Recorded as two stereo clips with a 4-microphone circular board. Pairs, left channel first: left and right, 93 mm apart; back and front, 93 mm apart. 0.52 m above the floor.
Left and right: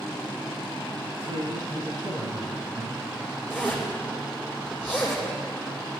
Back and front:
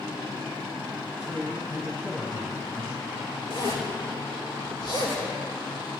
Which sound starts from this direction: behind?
A zipper, at 3.5 s.